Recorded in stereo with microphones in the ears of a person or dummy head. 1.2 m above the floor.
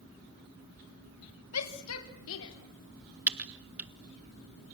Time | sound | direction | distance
1.5 | a shout | 85° left | 2.5 m
3.3 | typing on a keyboard | 10° right (ahead or behind) | 1.6 m